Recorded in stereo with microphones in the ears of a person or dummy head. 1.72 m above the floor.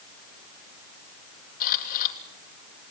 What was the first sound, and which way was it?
A camera shutter, 50° left (ahead or behind).